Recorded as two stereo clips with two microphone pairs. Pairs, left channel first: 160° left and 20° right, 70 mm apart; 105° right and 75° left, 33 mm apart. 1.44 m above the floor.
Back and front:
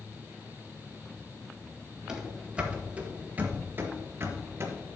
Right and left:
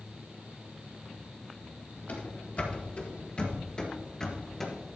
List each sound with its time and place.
2.1 s running footsteps: 95° right, 2 m; by 5.0 s 25° right, 1.8 m